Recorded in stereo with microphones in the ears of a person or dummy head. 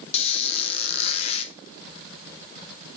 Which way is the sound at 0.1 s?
35° left (ahead or behind).